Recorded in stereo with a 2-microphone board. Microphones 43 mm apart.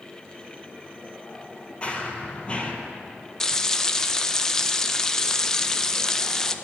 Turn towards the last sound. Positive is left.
turn(degrees=10)  # may be behind; listen again after turning